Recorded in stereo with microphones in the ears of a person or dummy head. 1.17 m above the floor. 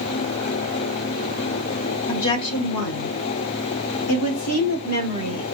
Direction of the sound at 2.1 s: 55° left (ahead or behind).